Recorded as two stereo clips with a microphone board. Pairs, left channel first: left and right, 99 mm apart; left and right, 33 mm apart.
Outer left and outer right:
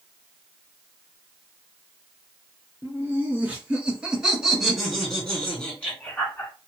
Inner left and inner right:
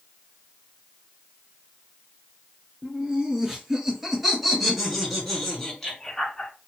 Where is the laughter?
20° right (ahead or behind), 2 m; by 6.5 s 20° left (ahead or behind), 1.8 m.